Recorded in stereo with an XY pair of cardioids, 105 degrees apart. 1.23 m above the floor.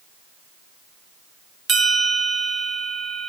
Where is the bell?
45° right, 1.3 m.